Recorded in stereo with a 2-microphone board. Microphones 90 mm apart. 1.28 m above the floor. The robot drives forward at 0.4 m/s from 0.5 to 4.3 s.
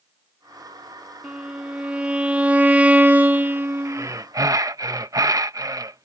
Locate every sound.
1.2 s a violin: 10° right (ahead or behind); by 4.1 s 25° right (ahead or behind)
3.9 s breathing: 35° right (ahead or behind); by 6.1 s 40° right (ahead or behind)